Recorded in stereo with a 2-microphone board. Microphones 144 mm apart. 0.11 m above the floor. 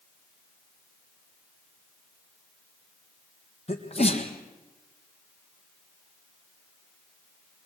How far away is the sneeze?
About 4 m.